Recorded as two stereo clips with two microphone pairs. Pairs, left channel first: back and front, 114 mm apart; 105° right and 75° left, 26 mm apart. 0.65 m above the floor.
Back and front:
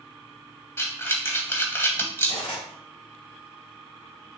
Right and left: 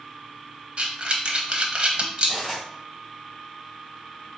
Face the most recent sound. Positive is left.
turn(degrees=170)